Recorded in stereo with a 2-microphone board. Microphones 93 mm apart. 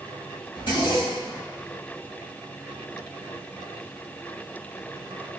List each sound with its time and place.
0.6 s a zipper: 60° left (ahead or behind), 1.0 m